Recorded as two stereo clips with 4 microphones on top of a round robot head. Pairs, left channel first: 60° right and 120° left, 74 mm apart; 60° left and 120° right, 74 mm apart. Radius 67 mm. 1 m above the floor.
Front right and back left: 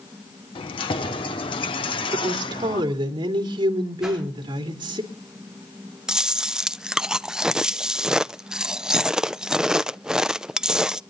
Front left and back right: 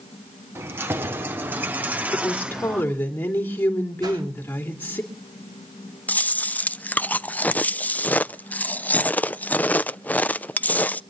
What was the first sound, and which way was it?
Keys jangling, 60° right.